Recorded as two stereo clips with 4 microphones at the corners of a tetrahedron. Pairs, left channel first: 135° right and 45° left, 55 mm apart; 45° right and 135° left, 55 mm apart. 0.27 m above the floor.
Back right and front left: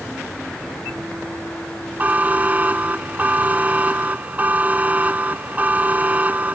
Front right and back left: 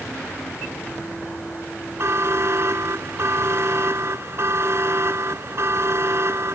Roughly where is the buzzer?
Left.